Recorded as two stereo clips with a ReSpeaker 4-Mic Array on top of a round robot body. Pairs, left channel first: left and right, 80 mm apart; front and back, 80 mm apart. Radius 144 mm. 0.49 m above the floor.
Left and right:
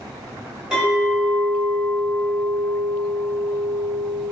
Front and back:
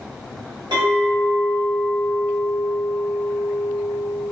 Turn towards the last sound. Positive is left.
turn(degrees=-170)